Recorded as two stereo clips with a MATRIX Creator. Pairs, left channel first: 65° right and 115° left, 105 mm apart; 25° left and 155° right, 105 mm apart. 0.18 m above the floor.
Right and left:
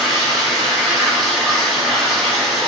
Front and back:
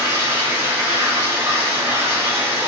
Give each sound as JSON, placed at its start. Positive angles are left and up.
{"t": 0.0, "sound": "running water", "azimuth_deg": -150, "distance_m": 0.9}